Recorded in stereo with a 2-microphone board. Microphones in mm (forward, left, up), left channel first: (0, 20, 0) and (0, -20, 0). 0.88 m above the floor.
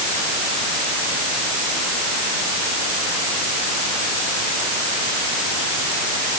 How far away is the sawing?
I don't hear sawing.